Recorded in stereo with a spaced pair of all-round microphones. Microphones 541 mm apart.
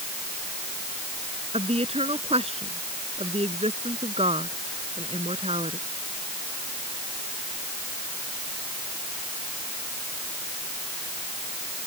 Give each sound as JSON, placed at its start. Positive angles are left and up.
{"t": 1.5, "sound": "a woman speaking", "side_deg": -10}